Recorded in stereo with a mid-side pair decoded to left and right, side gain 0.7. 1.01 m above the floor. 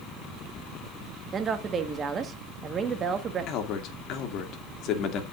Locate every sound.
1.3 s a woman speaking: 30° right, 1.3 m
3.5 s a man speaking: 55° left, 2 m